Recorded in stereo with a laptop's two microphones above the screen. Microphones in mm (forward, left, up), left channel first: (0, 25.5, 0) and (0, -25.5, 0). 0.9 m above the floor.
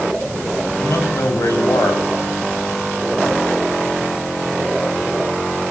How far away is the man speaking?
About 5.5 m.